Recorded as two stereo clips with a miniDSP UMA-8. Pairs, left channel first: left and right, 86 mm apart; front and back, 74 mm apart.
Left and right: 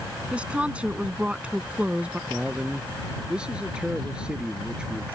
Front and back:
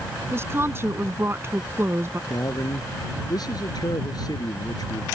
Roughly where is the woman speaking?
Behind right.